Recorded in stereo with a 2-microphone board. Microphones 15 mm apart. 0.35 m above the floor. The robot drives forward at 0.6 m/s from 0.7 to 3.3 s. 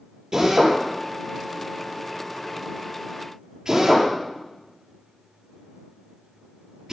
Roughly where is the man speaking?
No man speaking in this recording.